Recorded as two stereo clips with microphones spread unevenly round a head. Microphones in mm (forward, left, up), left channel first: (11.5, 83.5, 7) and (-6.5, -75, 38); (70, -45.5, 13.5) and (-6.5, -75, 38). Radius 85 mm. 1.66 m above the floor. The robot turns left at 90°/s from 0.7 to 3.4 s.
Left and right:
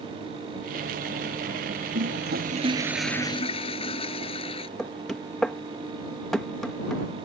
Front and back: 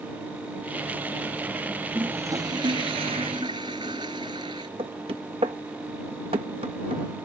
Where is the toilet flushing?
85° right; by 4.7 s 140° left.